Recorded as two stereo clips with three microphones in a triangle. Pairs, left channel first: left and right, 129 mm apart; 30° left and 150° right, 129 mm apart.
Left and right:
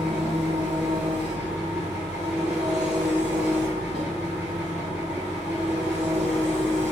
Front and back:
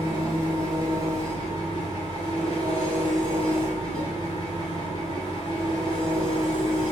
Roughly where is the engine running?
Ahead.